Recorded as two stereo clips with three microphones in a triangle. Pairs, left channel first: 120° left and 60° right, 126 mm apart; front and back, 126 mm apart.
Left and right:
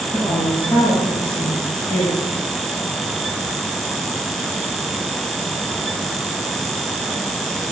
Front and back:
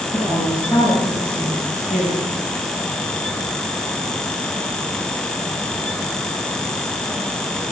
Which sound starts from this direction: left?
A woman speaking, at 0.1 s.